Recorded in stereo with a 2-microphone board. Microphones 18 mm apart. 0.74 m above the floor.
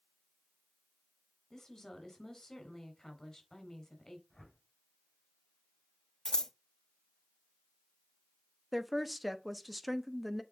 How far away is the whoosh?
About 3.5 m.